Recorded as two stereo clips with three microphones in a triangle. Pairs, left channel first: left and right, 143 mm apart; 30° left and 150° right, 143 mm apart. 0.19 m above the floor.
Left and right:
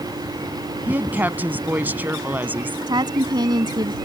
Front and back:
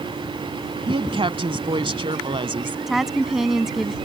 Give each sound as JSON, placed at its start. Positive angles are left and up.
{"t": 0.9, "sound": "a woman speaking", "azimuth_deg": -160}
{"t": 2.9, "sound": "a woman speaking", "azimuth_deg": -65}